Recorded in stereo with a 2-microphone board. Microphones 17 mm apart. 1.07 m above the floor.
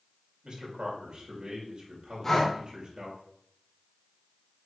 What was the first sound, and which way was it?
A man speaking, 55° right (ahead or behind).